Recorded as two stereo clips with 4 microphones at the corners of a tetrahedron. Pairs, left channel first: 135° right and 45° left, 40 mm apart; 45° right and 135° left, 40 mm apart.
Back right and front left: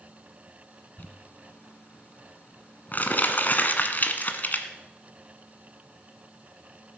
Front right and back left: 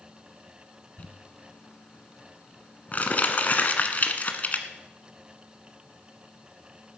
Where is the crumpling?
90° right, 1.2 m.